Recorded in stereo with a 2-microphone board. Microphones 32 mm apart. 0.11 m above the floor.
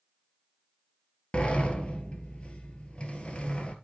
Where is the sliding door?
35° left (ahead or behind), 1.5 m.